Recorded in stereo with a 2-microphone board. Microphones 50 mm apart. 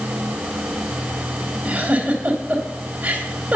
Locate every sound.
1.6 s a giggle: 30° right (ahead or behind), 2.5 m